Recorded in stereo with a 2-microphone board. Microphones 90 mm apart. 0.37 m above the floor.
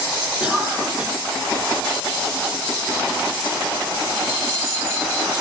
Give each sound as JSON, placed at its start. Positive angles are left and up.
{"t": 0.4, "sound": "a cough", "side_deg": -10, "distance_m": 4.0}